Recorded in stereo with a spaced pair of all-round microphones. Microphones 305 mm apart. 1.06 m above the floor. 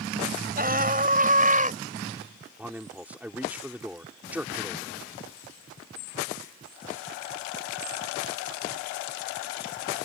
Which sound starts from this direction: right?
A scream, at 0.6 s.